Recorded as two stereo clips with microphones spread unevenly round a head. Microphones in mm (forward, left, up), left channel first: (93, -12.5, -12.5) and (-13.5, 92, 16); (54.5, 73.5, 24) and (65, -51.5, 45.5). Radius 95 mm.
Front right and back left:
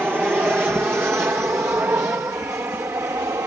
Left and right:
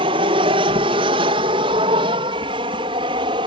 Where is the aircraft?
140° right; by 3.5 s 145° right.